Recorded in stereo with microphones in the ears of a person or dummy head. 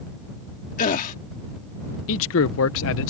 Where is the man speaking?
75° left (ahead or behind).